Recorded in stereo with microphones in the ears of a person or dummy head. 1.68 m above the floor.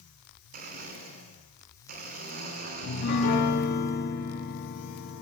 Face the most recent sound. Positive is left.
turn(degrees=55)  # may be behind; listen again after turning